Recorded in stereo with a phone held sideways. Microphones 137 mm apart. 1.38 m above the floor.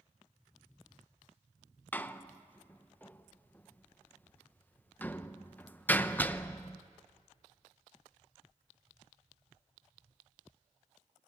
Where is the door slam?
10° left (ahead or behind), 0.7 m.